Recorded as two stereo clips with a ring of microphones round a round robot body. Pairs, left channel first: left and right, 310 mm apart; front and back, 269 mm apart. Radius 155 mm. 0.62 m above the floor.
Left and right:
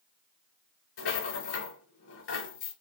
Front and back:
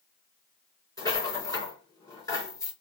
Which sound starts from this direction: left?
A rattle, at 1.0 s.